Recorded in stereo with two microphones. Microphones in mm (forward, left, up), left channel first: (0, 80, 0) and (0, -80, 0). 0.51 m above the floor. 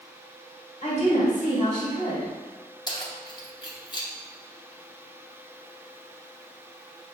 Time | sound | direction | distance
0.8 | a woman speaking | 50° left (ahead or behind) | 1.7 m
2.9 | keys jangling | 30° left (ahead or behind) | 0.7 m